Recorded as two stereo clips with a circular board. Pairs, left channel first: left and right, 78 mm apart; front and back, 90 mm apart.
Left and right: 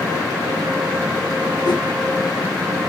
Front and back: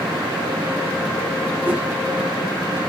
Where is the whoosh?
110° left, 0.9 m.